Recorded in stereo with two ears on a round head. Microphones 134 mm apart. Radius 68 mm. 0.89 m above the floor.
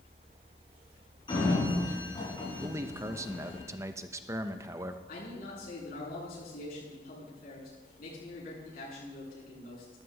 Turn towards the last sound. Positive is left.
turn(degrees=65)  # may be behind; listen again after turning